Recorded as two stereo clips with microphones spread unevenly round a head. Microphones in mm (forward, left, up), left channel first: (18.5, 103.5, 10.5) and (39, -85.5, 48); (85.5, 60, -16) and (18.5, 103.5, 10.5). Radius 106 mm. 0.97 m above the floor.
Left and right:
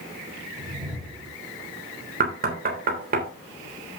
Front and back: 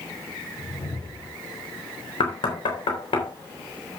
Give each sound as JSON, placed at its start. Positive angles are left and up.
{"t": 0.6, "sound": "a whoosh", "azimuth_deg": -5, "distance_m": 8.0}
{"t": 2.2, "sound": "knocking", "azimuth_deg": -40, "distance_m": 3.5}